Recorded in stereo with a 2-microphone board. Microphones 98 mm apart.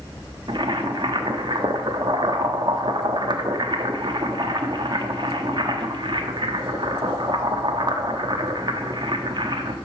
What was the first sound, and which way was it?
Boiling, 50° right (ahead or behind).